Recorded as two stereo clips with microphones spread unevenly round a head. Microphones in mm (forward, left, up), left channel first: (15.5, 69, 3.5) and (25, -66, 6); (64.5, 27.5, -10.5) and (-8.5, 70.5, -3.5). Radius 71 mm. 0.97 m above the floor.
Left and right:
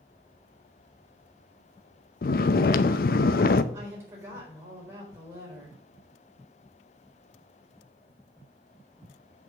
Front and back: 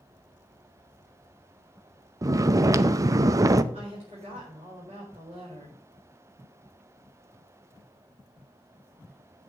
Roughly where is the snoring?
Left.